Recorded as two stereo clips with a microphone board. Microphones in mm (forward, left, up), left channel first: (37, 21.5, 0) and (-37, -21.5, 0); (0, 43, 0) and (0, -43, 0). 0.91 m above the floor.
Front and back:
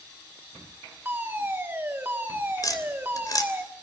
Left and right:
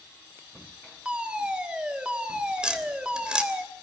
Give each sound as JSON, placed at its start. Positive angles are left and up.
{"t": 1.1, "sound": "a fire alarm", "azimuth_deg": -155, "distance_m": 1.9}
{"t": 2.6, "sound": "tapping", "azimuth_deg": -10, "distance_m": 3.0}